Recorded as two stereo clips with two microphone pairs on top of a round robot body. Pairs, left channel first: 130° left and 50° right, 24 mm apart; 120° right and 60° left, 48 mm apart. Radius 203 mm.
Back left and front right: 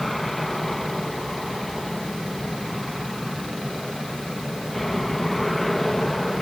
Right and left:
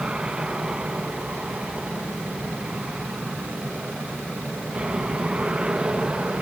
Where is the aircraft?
70° left; by 6.4 s 60° left.